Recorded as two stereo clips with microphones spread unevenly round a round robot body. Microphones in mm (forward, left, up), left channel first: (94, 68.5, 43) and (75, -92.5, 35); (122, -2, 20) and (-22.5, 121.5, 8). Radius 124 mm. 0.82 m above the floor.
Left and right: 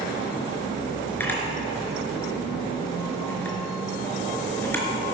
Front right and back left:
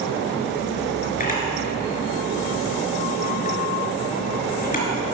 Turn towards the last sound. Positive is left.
turn(degrees=5)